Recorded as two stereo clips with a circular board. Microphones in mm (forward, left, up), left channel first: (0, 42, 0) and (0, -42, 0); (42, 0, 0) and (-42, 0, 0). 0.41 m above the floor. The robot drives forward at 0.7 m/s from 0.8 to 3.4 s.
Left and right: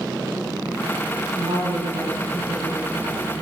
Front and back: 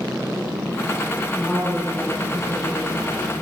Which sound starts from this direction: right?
A woman speaking, at 1.3 s.